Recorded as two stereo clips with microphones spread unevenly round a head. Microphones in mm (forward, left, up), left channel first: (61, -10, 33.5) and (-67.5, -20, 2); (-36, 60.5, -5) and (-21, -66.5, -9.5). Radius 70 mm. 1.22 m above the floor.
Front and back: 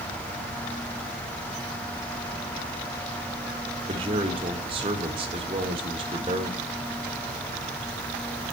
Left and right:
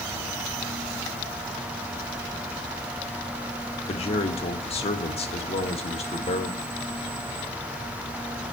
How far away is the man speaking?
About 1.9 m.